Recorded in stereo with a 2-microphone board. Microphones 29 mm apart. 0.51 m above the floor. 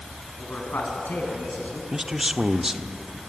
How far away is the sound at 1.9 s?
About 0.9 m.